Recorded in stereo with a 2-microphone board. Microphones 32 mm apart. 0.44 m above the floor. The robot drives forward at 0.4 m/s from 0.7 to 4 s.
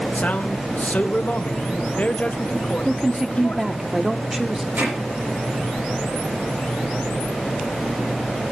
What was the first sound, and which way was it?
A man speaking, 50° left (ahead or behind).